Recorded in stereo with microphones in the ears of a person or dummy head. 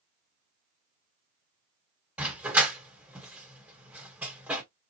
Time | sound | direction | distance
2.2 | a dog barking | 15° right (ahead or behind) | 1.4 m